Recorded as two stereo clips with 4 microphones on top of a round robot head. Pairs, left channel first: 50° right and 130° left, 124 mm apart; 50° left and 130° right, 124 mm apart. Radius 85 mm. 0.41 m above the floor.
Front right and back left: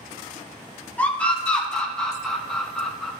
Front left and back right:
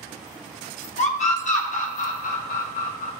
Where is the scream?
30° left, 2.5 m; by 3.1 s 35° left, 4.5 m.